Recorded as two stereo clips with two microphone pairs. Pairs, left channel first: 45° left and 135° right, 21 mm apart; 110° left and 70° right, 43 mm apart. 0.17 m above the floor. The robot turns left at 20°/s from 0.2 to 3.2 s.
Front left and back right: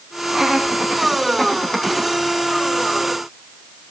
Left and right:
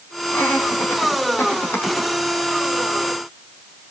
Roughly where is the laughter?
Behind left.